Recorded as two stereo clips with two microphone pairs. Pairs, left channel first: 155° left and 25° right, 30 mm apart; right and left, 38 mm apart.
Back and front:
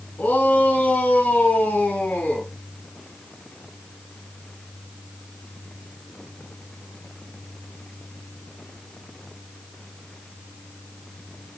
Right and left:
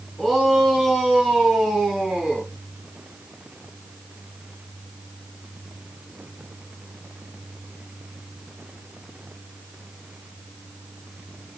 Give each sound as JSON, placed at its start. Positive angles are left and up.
{"t": 0.2, "sound": "a shout", "azimuth_deg": 170, "distance_m": 7.0}